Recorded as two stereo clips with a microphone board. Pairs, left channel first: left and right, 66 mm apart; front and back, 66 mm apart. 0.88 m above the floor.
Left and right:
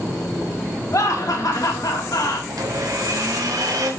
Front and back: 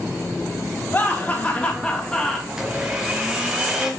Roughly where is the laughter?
Ahead left.